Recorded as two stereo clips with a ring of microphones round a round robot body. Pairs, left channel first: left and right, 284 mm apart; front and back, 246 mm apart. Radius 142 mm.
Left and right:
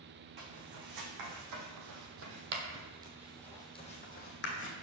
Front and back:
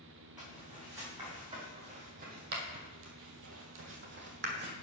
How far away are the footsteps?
About 2.5 m.